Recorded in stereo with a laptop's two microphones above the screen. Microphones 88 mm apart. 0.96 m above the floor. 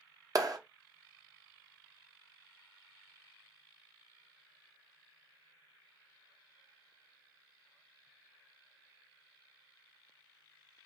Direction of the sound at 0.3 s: 45° right (ahead or behind).